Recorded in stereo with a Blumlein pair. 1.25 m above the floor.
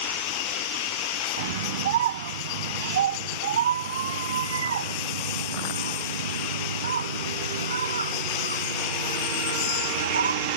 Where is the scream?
55° right; by 10.6 s 75° right.